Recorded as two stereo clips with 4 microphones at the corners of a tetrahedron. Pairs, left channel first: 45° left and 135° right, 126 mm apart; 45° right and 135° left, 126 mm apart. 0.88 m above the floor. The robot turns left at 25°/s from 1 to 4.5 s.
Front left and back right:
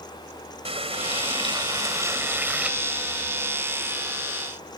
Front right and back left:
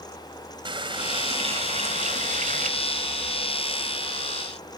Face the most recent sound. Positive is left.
turn(degrees=100)